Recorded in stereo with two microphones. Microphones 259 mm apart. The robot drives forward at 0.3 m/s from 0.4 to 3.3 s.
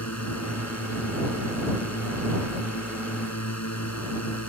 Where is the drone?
80° left.